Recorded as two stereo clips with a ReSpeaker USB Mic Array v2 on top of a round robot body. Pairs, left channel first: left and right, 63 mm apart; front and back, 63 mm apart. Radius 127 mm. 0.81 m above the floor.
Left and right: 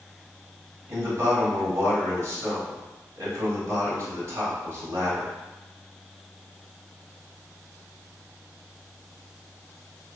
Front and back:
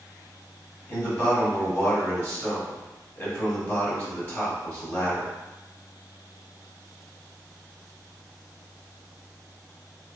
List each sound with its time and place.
0.9 s a man speaking: 50° right, 1.8 m